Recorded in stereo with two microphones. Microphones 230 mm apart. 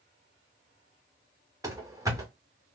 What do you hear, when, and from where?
1.6 s running footsteps: 15° right (ahead or behind), 1.1 m